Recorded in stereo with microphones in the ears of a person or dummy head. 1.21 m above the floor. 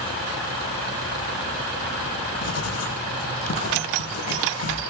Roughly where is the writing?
Left.